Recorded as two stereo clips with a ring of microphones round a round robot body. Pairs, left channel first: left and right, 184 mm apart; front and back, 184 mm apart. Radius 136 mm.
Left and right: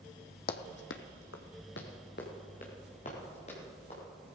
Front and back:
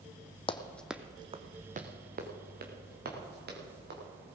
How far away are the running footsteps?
About 1.1 m.